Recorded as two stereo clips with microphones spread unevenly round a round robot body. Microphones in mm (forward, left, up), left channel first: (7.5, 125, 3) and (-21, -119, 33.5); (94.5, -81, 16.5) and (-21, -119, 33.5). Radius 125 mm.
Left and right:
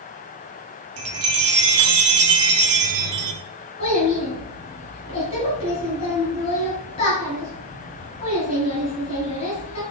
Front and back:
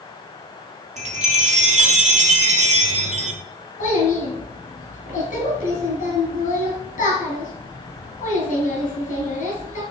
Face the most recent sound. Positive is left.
turn(degrees=15)